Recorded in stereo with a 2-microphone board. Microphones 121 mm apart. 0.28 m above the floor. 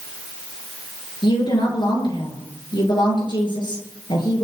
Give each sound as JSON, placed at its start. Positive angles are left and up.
{"t": 1.2, "sound": "a woman speaking", "side_deg": 45, "distance_m": 6.0}